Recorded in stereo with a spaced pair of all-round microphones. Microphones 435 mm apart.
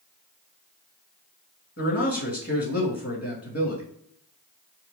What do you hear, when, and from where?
1.8 s a man speaking: 30° left (ahead or behind), 2 m